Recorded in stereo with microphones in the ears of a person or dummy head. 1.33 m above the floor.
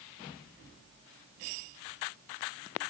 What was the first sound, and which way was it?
Only background noise.